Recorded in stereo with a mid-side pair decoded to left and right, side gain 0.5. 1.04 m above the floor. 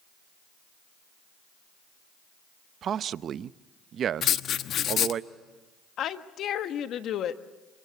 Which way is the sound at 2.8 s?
55° right.